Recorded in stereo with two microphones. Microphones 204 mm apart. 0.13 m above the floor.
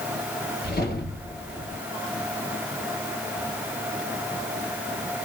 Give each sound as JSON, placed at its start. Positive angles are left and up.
{"t": 0.6, "sound": "a whoosh", "side_deg": 50, "distance_m": 2.0}